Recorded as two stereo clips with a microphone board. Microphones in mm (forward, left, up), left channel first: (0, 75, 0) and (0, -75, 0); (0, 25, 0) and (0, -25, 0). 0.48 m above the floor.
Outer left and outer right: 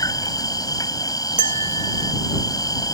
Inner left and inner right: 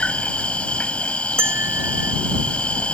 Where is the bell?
55° right (ahead or behind).